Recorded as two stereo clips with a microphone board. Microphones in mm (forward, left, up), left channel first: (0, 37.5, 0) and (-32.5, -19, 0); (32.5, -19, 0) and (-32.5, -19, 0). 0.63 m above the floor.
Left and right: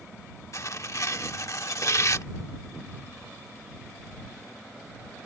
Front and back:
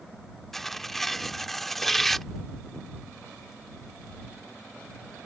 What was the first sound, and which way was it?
Tearing paper, 85° left.